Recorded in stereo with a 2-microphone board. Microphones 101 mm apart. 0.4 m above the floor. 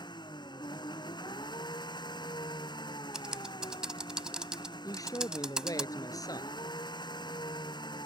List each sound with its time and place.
0.0 s an engine running: 45° left (ahead or behind)
3.1 s typing on a keyboard: 5° right (ahead or behind)
4.8 s a man speaking: 35° left (ahead or behind)